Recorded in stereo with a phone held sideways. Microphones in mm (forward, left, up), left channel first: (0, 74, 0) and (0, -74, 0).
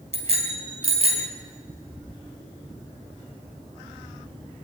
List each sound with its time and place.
0.1 s a bicycle bell: 45° right (ahead or behind), 4 m